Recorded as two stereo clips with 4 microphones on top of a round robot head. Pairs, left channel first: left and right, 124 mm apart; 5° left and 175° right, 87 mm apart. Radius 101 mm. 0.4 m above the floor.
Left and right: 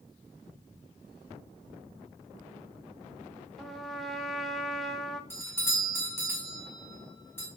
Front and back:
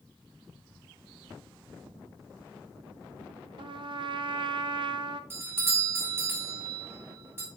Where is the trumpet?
Straight behind, 0.6 m.